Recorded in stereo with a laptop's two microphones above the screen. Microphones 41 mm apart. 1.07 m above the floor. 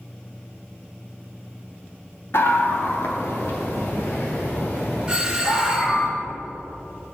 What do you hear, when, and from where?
2.3 s a scream: 65° left (ahead or behind), 1.7 m; by 6.1 s 75° left (ahead or behind), 5 m
5.1 s a doorbell: 20° right (ahead or behind), 1.5 m